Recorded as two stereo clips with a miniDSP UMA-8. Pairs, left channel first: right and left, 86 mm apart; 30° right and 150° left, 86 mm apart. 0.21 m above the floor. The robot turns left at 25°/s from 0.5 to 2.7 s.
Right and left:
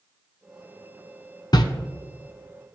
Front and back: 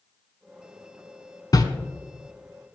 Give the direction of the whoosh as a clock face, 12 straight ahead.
2 o'clock.